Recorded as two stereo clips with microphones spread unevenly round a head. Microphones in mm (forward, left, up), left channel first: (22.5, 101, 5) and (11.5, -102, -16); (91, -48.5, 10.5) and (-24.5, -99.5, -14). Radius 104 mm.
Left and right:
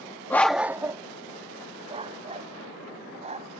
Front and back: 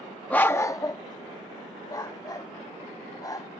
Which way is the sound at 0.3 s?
45° left.